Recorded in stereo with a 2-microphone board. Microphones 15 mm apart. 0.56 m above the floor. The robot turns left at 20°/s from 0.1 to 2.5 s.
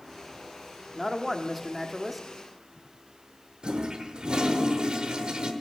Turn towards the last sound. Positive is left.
turn(degrees=-70)  # may be behind; listen again after turning